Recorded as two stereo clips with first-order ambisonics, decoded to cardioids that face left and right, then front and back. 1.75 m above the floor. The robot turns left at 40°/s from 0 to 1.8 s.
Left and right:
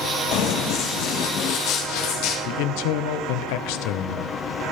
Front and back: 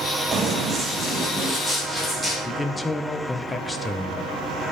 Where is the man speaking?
80° left, 1.0 m.